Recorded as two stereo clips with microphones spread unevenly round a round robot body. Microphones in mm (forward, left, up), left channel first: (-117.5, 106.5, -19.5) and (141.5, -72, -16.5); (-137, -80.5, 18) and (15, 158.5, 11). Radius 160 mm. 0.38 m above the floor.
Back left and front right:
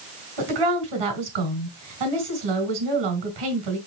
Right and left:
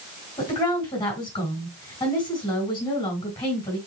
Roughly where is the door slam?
I don't hear a door slam.